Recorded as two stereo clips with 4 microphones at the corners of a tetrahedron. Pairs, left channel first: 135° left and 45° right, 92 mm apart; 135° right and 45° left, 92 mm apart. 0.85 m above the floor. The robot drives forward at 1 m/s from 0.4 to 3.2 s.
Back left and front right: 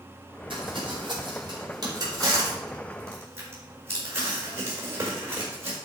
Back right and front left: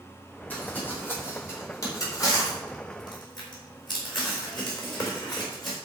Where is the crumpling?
65° right, 4.5 m; by 5.8 s 105° right, 4 m.